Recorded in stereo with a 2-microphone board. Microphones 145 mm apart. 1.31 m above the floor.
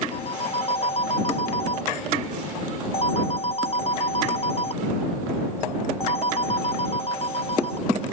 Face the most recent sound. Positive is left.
turn(degrees=40)  # may be behind; listen again after turning